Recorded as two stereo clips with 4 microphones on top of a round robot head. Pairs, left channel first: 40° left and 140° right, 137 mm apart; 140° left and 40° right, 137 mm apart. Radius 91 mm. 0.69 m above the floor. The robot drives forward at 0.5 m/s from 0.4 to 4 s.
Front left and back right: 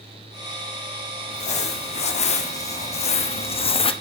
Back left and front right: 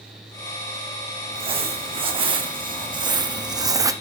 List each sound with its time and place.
1.3 s crumpling: 5° left, 2 m; by 3.9 s 15° left, 0.9 m